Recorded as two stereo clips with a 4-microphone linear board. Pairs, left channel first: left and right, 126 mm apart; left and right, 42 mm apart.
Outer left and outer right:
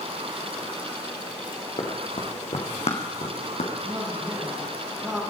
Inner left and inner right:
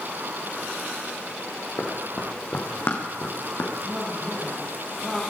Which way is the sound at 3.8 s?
25° right (ahead or behind).